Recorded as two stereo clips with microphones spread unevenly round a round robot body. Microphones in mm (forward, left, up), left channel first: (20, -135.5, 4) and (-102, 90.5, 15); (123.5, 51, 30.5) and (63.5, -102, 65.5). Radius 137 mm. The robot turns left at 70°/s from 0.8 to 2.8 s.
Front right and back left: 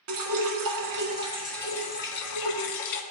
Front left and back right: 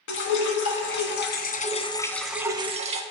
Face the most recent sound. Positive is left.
turn(degrees=-60)